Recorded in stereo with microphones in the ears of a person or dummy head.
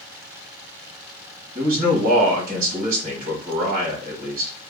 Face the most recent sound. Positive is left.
turn(degrees=-45)  # may be behind; listen again after turning